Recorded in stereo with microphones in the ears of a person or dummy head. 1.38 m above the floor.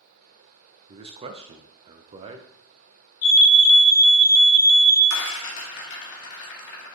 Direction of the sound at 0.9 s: 30° right (ahead or behind).